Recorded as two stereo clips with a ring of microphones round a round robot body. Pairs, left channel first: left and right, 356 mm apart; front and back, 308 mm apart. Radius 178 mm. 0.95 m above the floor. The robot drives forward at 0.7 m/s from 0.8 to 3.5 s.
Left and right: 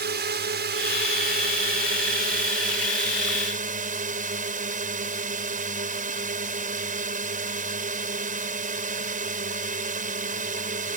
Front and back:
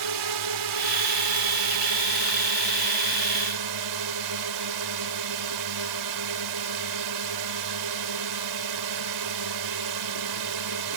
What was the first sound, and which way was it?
A drone, 150° right.